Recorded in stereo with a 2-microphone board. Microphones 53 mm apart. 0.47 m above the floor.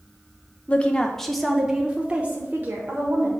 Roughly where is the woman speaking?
Left.